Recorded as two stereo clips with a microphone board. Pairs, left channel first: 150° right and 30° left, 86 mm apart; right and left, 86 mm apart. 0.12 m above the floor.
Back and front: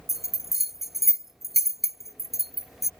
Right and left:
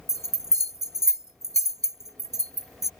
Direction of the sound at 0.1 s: 115° left.